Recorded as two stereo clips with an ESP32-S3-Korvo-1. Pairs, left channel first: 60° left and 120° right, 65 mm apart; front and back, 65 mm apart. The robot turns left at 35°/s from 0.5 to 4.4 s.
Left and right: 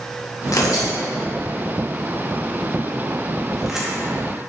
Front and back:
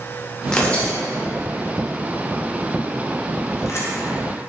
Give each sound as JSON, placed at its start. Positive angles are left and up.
{"t": 0.5, "sound": "tearing paper", "azimuth_deg": 75, "distance_m": 0.7}